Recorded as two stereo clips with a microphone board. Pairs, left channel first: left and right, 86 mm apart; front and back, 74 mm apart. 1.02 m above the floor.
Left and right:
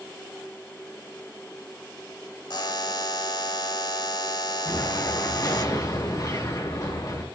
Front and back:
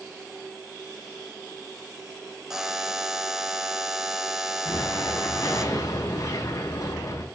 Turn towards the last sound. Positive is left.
turn(degrees=40)